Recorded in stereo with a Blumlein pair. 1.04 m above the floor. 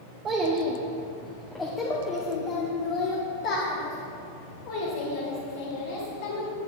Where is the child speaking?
25° right, 1.1 m; by 6.5 s 60° left, 3.5 m.